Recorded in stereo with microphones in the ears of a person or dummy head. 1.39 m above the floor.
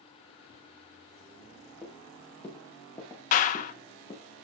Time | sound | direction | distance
1.8 | footsteps | 10° left (ahead or behind) | 6.5 m
3.3 | a clap | 50° left (ahead or behind) | 1.3 m